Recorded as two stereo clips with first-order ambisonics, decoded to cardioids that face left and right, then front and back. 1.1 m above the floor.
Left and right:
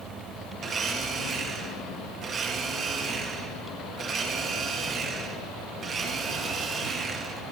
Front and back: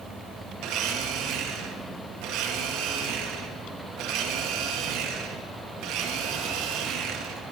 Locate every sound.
0.6 s a blender: 155° right, 1.8 m